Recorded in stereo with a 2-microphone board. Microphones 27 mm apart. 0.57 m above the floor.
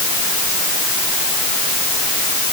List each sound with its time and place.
Only background noise.